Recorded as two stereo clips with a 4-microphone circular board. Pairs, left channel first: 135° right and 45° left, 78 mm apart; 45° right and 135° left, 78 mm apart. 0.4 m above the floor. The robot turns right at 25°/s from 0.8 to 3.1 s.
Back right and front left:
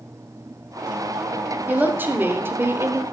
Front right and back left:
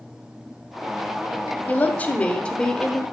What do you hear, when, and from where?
1.7 s a woman speaking: straight ahead, 0.9 m; by 3.0 s 35° left, 0.9 m